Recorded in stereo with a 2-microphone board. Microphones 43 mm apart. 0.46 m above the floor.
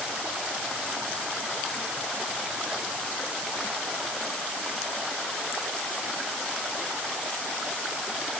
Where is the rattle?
I don't hear a rattle.